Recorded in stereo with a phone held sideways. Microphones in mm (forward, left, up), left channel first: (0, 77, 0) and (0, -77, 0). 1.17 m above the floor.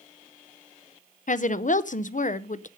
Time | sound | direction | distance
1.3 | a woman speaking | 55° left (ahead or behind) | 0.6 m